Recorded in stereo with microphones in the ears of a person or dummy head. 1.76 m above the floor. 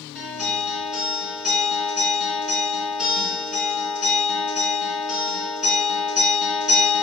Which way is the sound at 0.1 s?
5° right (ahead or behind).